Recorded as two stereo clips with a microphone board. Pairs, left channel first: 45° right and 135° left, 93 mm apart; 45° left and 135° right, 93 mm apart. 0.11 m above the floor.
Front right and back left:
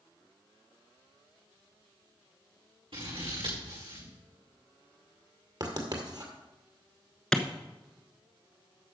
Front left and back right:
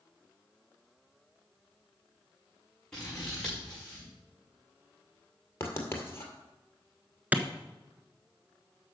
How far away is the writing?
About 1.9 m.